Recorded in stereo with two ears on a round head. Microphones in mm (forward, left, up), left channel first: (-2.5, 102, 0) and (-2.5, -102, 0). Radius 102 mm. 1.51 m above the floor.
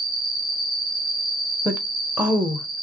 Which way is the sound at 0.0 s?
20° right (ahead or behind).